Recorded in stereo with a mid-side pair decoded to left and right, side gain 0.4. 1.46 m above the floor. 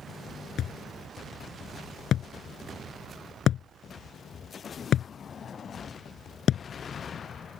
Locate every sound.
0.6 s a thud: 70° left